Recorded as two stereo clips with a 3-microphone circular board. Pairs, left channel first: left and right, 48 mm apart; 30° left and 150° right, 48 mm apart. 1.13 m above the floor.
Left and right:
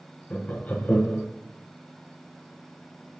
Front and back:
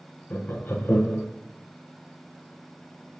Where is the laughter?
50° left, 0.8 m.